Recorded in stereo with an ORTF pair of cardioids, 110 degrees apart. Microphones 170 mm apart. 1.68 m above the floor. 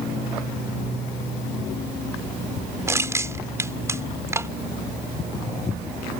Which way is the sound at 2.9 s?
15° right.